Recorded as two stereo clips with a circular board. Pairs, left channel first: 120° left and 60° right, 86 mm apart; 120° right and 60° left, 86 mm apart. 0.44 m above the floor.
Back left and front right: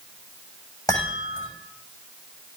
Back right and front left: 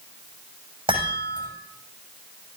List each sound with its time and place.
0.9 s a chime: 75° left, 7 m